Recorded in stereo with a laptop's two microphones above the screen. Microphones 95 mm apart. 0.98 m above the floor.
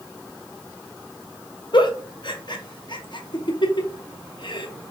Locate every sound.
1.7 s a giggle: 55° left (ahead or behind), 0.5 m